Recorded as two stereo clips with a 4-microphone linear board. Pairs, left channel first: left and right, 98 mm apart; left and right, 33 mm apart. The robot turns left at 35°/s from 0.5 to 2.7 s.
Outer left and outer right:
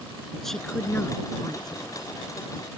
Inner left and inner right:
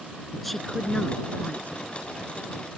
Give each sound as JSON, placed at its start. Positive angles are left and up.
{"t": 0.3, "sound": "a woman speaking", "azimuth_deg": 175}